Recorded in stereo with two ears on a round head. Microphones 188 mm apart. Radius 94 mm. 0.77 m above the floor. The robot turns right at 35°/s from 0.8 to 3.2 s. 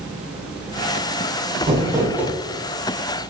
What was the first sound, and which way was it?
Crumpling, 30° right (ahead or behind).